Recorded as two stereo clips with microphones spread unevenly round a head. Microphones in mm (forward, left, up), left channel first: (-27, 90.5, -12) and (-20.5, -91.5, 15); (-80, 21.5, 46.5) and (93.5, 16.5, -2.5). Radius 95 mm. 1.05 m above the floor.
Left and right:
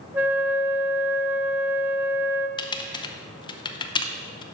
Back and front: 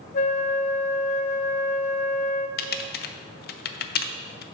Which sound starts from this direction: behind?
A flute, at 0.1 s.